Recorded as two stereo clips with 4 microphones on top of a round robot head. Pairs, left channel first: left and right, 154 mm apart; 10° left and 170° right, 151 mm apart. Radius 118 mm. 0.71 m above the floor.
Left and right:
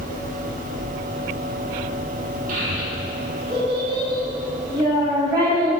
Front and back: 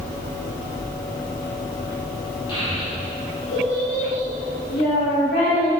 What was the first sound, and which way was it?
A child speaking, 55° right.